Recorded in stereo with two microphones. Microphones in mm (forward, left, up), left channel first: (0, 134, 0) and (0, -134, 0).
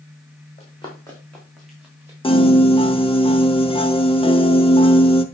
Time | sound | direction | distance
0.6 | running footsteps | 25° left (ahead or behind) | 3.5 m
2.2 | a piano | 20° left (ahead or behind) | 0.7 m